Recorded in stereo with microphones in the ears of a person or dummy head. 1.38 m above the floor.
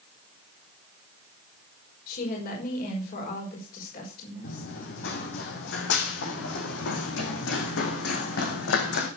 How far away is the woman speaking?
About 5.5 m.